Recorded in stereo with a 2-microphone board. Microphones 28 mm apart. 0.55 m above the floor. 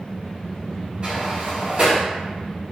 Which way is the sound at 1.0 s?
40° right (ahead or behind).